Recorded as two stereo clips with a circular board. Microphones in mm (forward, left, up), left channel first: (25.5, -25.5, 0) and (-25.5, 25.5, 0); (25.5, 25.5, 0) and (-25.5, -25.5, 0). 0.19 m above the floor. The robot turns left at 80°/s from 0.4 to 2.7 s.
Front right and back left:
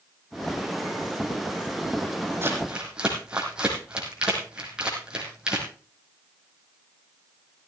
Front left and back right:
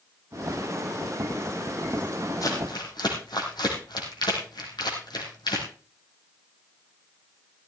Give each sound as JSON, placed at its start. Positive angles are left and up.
{"t": 2.4, "sound": "crumpling", "azimuth_deg": 80, "distance_m": 4.0}